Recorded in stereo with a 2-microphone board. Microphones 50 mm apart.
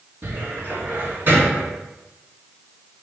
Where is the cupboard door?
45° right (ahead or behind), 2.5 m.